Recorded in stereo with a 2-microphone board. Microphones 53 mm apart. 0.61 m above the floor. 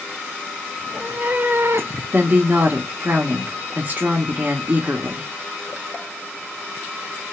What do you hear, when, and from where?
0.8 s a cat meowing: 25° right (ahead or behind), 1.2 m; by 2.0 s 60° right (ahead or behind), 0.6 m
2.1 s a woman speaking: 35° right (ahead or behind), 1.0 m